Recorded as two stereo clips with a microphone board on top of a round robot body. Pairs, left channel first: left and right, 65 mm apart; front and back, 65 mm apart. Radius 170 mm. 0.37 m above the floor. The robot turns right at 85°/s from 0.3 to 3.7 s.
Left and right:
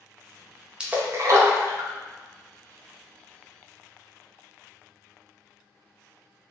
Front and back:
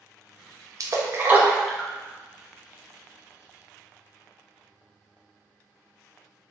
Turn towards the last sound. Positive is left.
turn(degrees=85)